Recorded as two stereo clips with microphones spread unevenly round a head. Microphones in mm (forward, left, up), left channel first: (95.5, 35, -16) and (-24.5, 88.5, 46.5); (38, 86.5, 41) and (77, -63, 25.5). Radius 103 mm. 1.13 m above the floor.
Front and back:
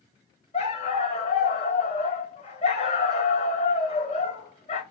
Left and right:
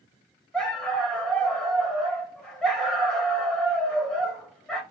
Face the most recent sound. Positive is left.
turn(degrees=20)